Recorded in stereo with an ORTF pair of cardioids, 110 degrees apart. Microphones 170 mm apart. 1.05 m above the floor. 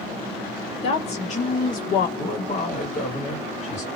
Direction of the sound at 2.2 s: 40° left.